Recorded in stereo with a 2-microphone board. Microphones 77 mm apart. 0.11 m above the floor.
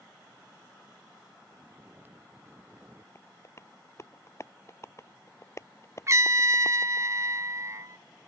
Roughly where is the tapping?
Left.